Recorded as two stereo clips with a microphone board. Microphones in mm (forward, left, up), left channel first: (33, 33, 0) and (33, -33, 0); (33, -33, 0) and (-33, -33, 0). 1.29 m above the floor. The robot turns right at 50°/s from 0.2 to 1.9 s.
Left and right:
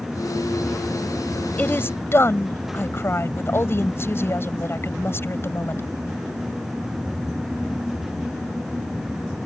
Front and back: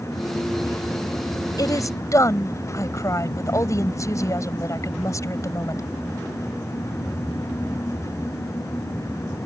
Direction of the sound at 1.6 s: 20° left.